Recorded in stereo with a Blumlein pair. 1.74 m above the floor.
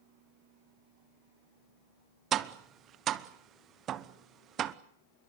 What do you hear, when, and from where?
2.3 s tapping: 30° right, 0.9 m